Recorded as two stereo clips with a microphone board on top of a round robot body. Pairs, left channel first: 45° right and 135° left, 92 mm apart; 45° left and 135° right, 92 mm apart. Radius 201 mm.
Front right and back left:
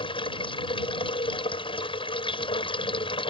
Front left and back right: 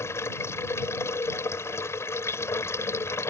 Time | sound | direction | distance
0.0 | running water | 15° right | ?